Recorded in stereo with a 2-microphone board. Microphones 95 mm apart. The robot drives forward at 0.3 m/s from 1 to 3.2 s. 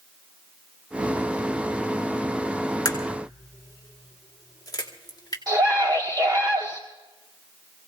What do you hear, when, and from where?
2.9 s a crack: 40° left (ahead or behind), 1.8 m; by 5.4 s 45° left (ahead or behind), 1.7 m
5.5 s a scream: 40° right (ahead or behind), 1.4 m